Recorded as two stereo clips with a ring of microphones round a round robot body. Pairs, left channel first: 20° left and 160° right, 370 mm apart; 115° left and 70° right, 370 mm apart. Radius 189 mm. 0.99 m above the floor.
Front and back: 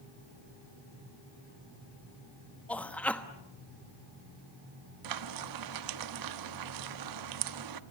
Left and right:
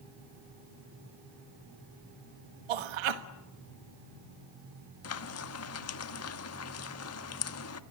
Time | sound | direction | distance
2.7 | a man speaking | 65° right | 1.2 m
5.0 | frying | 165° left | 1.2 m